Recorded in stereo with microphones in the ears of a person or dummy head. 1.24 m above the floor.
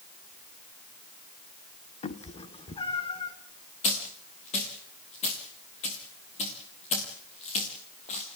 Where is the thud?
No thud in this recording.